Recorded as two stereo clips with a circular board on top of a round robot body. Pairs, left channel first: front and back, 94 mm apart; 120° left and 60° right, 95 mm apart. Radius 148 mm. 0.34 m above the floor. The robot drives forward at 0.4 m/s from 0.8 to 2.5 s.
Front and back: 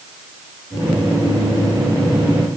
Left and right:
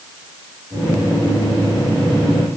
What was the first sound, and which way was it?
Only background noise.